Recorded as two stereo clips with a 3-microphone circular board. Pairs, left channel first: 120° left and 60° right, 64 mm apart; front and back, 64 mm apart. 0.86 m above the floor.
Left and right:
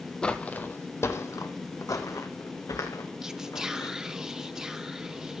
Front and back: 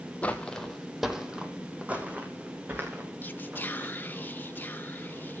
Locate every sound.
0.2 s footsteps: 50° left, 1.1 m; by 4.0 s 125° left, 3.5 m
3.2 s whispering: 10° left, 0.7 m